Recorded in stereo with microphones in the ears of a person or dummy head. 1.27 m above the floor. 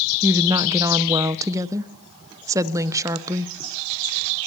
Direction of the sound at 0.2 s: 15° right (ahead or behind).